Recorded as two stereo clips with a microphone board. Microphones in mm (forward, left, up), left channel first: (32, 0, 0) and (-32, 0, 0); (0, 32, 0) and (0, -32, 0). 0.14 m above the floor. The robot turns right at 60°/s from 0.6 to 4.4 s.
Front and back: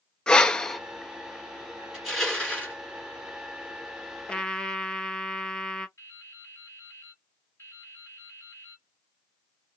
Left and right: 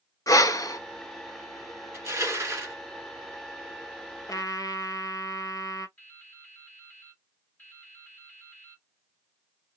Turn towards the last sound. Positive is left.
turn(degrees=35)